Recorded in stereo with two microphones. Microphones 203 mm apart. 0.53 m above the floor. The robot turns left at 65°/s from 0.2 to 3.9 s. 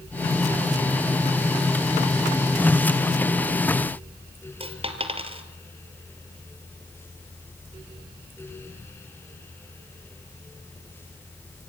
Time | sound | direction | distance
4.6 | a dropped coin | 30° right (ahead or behind) | 1.4 m